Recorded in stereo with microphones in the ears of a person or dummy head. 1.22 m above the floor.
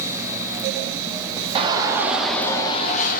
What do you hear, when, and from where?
1.6 s a shout: 25° right (ahead or behind), 0.8 m; by 3.2 s 45° left (ahead or behind), 0.7 m